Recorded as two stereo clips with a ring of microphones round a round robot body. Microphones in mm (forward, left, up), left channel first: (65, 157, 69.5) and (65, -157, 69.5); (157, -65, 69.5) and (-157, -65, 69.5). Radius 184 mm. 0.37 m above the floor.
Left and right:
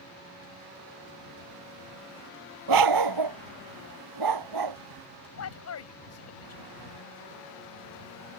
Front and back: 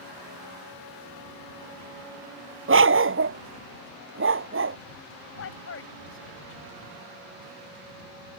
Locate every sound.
2.7 s a dog barking: 125° right
5.4 s a man speaking: 50° left